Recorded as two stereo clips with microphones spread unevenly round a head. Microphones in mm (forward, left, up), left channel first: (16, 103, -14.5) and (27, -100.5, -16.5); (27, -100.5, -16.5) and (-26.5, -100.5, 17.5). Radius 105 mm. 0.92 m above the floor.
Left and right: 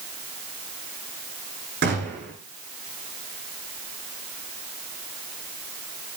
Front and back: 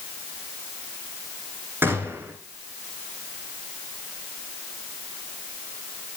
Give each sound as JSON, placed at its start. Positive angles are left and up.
{"t": 1.8, "sound": "a gunshot", "azimuth_deg": -135, "distance_m": 8.5}